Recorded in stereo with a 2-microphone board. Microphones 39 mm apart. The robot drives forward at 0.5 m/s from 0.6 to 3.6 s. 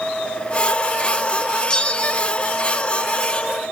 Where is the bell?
20° left (ahead or behind), 0.8 m; by 2.3 s 35° left (ahead or behind), 0.6 m.